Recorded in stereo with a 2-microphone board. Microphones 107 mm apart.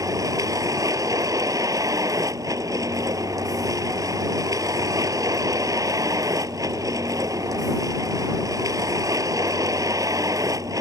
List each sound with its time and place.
0.0 s a vehicle: 30° right (ahead or behind)